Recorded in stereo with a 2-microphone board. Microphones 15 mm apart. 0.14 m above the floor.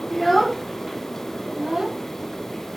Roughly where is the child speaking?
Left.